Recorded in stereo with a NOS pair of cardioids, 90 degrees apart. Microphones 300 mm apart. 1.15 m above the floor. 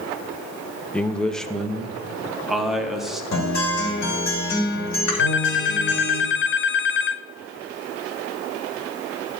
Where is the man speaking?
5° left, 0.7 m; by 3.2 s straight ahead, 2 m.